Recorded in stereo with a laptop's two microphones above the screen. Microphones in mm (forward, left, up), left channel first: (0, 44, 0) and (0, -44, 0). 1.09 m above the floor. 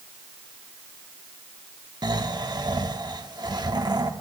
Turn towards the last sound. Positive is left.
turn(degrees=-50)  # may be behind; listen again after turning